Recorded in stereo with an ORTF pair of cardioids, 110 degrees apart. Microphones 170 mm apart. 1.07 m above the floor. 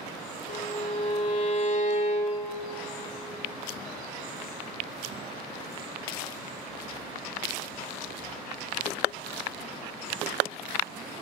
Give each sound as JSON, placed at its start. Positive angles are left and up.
{"t": 0.5, "sound": "a violin", "azimuth_deg": 50, "distance_m": 1.3}